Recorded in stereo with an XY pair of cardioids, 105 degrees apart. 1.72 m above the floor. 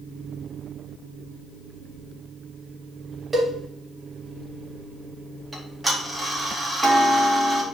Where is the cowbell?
25° right, 2.5 m.